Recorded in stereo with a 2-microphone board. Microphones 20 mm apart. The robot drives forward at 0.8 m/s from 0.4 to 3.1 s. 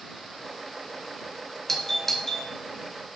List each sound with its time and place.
1.7 s a doorbell: 20° left (ahead or behind), 2 m; by 2.5 s 25° left (ahead or behind), 1.6 m